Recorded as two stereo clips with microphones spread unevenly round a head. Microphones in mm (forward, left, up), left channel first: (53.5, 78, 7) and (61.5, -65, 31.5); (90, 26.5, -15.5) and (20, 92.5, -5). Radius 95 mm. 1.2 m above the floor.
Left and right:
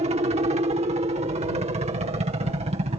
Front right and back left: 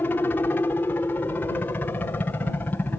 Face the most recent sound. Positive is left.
turn(degrees=-100)